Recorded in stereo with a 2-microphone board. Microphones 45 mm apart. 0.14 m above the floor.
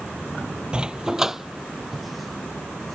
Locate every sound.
0.7 s a dog barking: 20° right (ahead or behind); by 3.0 s 5° left (ahead or behind)